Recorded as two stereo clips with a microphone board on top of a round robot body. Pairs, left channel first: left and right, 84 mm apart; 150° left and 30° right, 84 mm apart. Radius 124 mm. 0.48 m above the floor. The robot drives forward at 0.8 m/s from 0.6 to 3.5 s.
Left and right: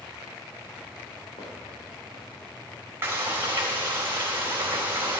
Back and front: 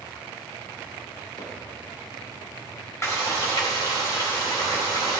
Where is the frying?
150° right, 3 m; by 5.2 s 155° right, 3.5 m.